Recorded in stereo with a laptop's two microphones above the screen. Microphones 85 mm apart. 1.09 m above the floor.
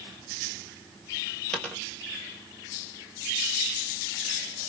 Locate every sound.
1.5 s a dropped coin: 10° left (ahead or behind), 2.0 m